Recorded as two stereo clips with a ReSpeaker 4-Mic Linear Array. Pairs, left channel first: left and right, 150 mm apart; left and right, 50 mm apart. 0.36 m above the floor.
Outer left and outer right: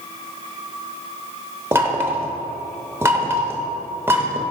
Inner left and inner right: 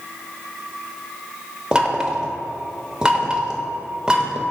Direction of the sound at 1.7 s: 15° right (ahead or behind).